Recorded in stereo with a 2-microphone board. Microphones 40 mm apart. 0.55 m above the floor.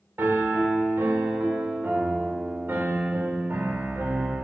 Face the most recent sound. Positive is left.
turn(degrees=-60)  # may be behind; listen again after turning